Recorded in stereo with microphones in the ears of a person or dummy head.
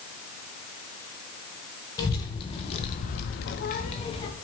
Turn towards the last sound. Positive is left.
turn(degrees=25)  # may be behind; listen again after turning